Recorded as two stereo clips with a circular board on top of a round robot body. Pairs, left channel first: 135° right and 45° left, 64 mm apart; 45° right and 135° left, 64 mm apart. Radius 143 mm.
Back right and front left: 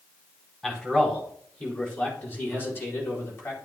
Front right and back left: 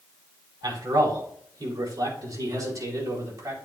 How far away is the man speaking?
About 4 m.